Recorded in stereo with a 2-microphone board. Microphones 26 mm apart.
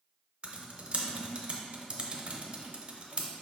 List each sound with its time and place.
0.4 s typing on a keyboard: 45° right (ahead or behind), 0.6 m